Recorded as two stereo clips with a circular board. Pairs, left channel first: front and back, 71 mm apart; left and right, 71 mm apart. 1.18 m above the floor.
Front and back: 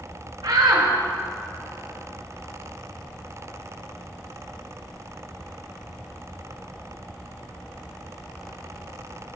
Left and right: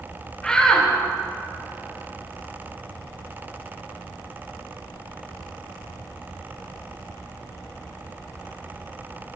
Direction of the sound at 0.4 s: 170° left.